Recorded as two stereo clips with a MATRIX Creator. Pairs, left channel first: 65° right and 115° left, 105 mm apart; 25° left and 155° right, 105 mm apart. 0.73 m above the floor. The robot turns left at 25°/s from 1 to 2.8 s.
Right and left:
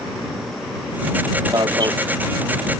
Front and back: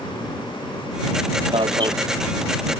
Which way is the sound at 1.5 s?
165° left.